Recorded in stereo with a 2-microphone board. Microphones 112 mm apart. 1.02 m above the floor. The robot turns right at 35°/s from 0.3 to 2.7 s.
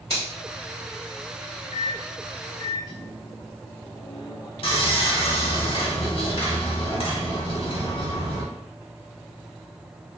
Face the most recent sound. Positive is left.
turn(degrees=50)  # may be behind; listen again after turning